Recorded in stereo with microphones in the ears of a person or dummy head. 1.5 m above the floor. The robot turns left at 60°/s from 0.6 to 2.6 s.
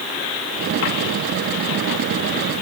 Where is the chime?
I don't hear a chime.